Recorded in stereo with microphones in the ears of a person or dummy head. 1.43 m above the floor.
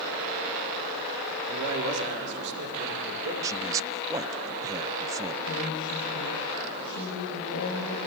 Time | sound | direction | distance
1.5 | a man speaking | 70° right (ahead or behind) | 4 m
3.4 | a man speaking | 15° right (ahead or behind) | 0.7 m
5.5 | a woman speaking | 65° left (ahead or behind) | 5.5 m